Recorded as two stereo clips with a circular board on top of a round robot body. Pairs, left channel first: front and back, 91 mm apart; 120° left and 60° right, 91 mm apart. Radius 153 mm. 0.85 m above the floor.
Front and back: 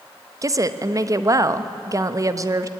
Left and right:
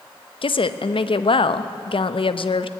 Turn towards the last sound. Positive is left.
turn(degrees=130)